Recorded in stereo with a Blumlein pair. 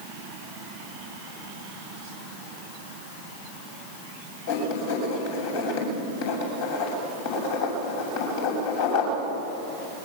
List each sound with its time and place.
4.5 s writing: 55° left, 7 m